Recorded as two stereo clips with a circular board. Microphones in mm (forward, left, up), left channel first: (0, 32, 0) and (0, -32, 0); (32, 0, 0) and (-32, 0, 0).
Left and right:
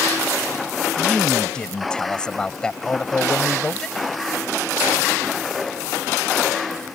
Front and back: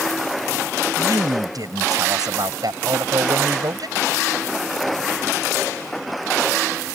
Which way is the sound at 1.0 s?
165° left.